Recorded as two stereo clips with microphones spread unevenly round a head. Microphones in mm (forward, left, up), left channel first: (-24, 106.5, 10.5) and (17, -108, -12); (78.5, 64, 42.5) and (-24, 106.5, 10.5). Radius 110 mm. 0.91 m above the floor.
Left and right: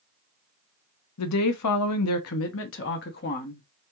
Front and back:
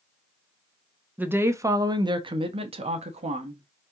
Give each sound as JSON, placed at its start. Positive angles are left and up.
{"t": 1.2, "sound": "a woman speaking", "azimuth_deg": 85, "distance_m": 1.1}